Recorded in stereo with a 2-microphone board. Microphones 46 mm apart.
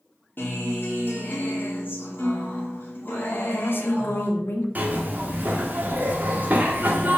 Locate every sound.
0.4 s a guitar: 50° left (ahead or behind), 2.5 m
3.3 s a woman speaking: 55° left (ahead or behind), 1.6 m
4.8 s a zipper: 40° right (ahead or behind), 1.5 m